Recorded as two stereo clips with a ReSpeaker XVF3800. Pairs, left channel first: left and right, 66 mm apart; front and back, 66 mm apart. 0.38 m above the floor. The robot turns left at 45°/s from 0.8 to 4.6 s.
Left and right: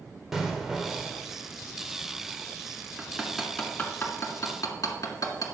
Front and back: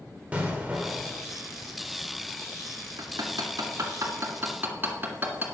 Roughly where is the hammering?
Behind.